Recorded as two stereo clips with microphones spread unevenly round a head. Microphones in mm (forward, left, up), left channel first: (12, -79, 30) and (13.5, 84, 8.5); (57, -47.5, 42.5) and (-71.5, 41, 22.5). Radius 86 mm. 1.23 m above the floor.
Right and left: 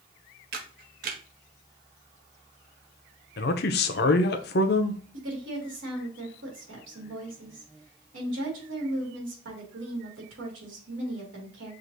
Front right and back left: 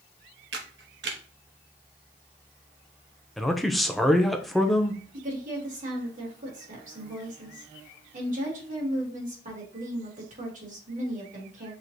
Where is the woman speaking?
105° left, 2 m.